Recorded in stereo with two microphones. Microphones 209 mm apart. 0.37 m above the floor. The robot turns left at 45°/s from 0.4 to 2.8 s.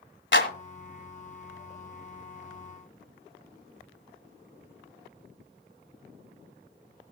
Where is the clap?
65° left (ahead or behind), 1.8 m; by 0.5 s 60° left (ahead or behind), 1.8 m.